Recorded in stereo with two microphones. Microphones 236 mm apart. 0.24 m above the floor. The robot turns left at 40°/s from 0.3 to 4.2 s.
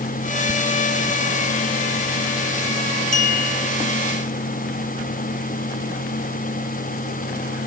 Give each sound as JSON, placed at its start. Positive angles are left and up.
{"t": 3.1, "sound": "a clink", "side_deg": 35, "distance_m": 1.0}